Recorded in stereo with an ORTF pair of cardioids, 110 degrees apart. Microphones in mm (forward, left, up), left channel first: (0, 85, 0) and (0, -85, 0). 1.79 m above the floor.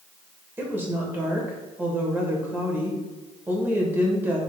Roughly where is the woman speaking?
Ahead.